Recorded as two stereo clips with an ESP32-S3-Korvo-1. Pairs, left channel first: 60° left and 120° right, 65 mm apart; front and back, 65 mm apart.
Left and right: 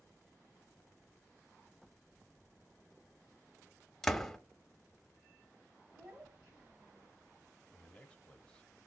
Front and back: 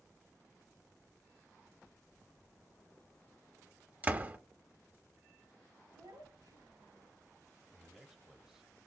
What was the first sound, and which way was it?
A door slam, 140° left.